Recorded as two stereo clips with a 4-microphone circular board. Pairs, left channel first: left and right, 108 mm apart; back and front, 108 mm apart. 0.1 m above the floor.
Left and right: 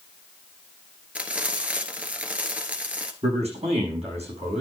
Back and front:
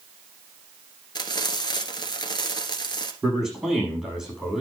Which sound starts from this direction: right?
A man speaking, at 3.2 s.